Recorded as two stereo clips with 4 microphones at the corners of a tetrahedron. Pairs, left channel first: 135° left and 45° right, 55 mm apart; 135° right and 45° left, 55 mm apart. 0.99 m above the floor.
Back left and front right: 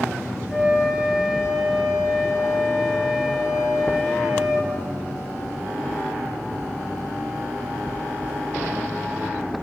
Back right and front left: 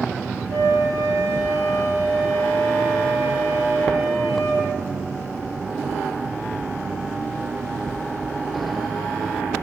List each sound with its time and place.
0.5 s a flute: 35° left, 5 m